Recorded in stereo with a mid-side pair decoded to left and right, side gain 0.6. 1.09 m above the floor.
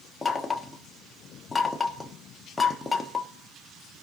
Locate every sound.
0.2 s knocking: 15° left, 1.3 m